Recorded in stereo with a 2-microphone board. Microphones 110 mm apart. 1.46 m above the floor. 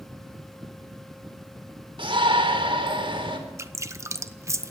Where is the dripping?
25° right (ahead or behind), 0.8 m.